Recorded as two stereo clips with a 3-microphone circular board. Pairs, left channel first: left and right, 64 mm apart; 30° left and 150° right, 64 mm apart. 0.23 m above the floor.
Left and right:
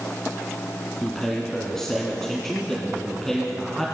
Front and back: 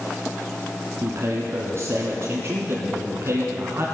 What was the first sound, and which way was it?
A man speaking, 175° left.